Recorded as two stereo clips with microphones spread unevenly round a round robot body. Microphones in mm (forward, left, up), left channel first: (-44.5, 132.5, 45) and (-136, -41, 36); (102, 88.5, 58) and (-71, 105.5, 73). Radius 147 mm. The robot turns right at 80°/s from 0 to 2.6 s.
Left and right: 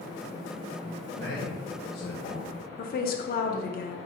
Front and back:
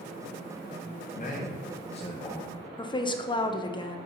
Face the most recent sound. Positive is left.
turn(degrees=45)